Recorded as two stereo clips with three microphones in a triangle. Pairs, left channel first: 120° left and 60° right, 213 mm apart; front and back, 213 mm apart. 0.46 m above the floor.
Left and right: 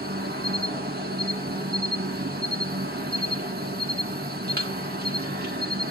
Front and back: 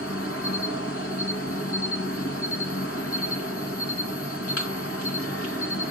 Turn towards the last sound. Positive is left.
turn(degrees=-15)